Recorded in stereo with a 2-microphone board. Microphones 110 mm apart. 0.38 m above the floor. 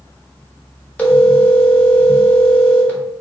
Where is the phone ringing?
15° left (ahead or behind), 0.8 m.